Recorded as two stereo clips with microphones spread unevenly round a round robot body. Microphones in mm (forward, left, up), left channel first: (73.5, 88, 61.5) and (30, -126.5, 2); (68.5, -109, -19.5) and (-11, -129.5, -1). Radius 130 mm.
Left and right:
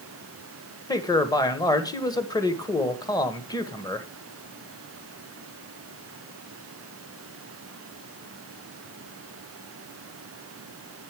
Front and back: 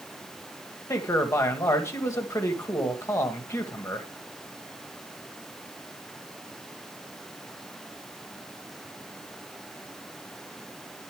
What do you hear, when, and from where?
0.9 s a man speaking: 5° right, 1.5 m